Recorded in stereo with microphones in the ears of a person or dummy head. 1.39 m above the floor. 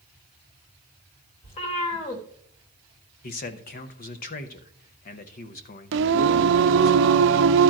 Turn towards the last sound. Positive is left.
turn(degrees=-60)  # may be behind; listen again after turning